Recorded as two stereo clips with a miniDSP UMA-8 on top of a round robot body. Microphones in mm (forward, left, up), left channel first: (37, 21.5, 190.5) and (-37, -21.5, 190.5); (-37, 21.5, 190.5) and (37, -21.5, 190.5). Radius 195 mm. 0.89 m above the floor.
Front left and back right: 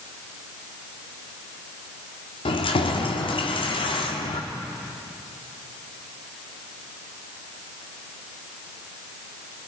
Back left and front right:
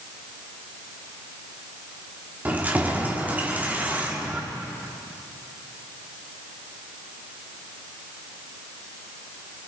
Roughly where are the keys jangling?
Ahead left.